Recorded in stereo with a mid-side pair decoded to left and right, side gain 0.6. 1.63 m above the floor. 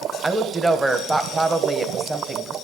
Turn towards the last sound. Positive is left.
turn(degrees=-20)